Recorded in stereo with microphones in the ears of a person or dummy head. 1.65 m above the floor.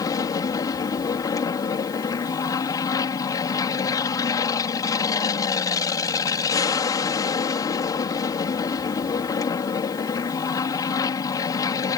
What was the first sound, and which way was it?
An aircraft, 15° left (ahead or behind).